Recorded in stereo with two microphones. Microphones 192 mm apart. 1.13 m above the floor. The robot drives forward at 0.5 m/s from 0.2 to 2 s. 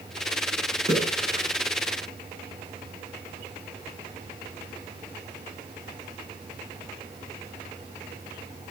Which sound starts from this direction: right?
A splash, at 0.9 s.